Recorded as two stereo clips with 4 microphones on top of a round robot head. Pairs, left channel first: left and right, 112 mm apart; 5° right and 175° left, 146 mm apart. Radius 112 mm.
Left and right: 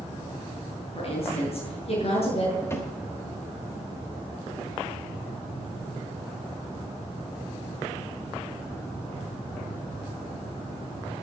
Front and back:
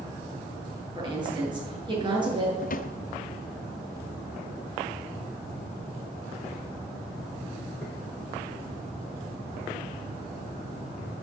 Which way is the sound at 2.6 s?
20° left.